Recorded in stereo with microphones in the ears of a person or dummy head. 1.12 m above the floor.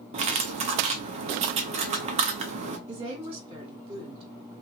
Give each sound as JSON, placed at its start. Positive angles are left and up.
{"t": 0.1, "sound": "cutlery clinking", "side_deg": -40, "distance_m": 0.6}
{"t": 2.9, "sound": "a woman speaking", "side_deg": -25, "distance_m": 1.3}